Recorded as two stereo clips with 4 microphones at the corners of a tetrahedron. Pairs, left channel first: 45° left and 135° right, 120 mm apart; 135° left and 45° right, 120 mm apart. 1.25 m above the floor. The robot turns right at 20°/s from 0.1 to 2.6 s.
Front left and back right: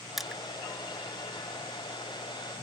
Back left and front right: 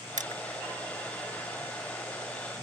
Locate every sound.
0.2 s crushing: 45° right; by 0.4 s 40° right